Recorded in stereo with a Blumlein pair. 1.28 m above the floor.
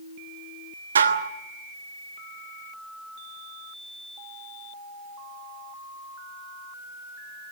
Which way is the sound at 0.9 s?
70° right.